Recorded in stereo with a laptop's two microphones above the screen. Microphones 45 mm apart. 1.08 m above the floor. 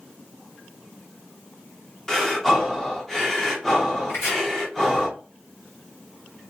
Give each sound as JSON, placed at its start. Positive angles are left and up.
{"t": 2.1, "sound": "breathing", "side_deg": 10, "distance_m": 0.5}
{"t": 4.1, "sound": "chopping", "side_deg": 75, "distance_m": 1.3}